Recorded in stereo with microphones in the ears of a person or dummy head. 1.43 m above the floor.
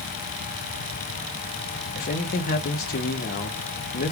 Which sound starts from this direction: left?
A man speaking, at 1.9 s.